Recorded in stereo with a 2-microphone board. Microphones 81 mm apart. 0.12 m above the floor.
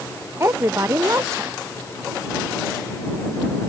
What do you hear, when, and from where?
0.4 s a woman speaking: 35° right (ahead or behind)